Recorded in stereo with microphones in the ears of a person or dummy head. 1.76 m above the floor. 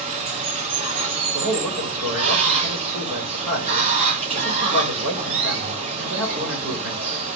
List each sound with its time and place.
0.0 s running water: 40° right (ahead or behind), 0.9 m
1.3 s a man speaking: 75° right (ahead or behind), 1.7 m